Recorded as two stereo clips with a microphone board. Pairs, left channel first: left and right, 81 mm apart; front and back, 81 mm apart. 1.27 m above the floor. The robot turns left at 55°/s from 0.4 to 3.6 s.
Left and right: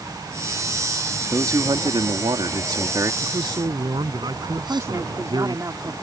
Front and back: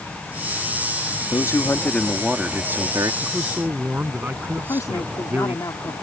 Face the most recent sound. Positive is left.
turn(degrees=-40)